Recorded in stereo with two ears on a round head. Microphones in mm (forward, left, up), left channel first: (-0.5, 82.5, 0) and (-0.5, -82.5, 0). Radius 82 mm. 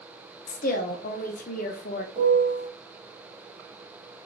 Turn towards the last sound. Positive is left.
turn(degrees=-30)  # may be behind; listen again after turning